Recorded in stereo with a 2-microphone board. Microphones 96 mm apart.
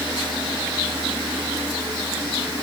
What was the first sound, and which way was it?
Only background noise.